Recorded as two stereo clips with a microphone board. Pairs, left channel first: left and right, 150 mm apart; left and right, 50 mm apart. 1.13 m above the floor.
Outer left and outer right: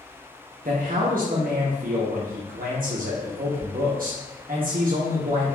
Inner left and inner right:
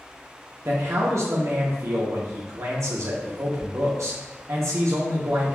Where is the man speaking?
70° right (ahead or behind), 0.7 m.